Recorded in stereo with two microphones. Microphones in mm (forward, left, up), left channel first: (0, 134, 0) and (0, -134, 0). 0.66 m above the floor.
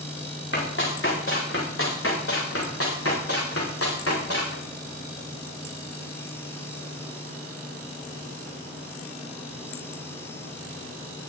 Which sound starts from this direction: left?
Running footsteps, at 0.5 s.